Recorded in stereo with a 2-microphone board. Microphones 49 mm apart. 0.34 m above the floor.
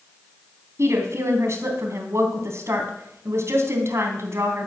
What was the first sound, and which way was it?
A woman speaking, 65° right (ahead or behind).